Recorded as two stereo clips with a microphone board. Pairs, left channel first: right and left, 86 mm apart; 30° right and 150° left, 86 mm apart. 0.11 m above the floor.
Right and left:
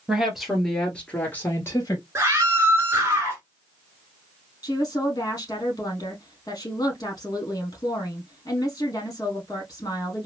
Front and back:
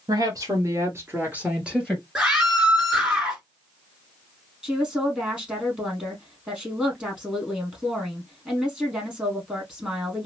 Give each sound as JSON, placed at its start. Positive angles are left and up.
{"t": 0.1, "sound": "a woman speaking", "azimuth_deg": 170, "distance_m": 1.9}
{"t": 2.1, "sound": "a scream", "azimuth_deg": 75, "distance_m": 1.8}
{"t": 4.6, "sound": "a woman speaking", "azimuth_deg": -135, "distance_m": 2.5}